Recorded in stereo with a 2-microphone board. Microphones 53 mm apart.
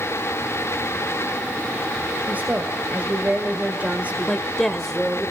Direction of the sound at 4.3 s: 5° left (ahead or behind).